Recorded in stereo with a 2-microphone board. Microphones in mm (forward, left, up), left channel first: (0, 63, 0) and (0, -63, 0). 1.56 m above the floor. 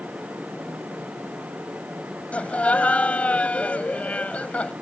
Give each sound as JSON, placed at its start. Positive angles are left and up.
{"t": 2.3, "sound": "laughter", "side_deg": 10}